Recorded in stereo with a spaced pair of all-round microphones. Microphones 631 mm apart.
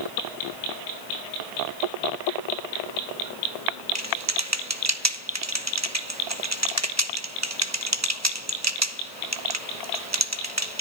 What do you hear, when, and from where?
4.0 s typing on a keyboard: 25° right (ahead or behind), 1.2 m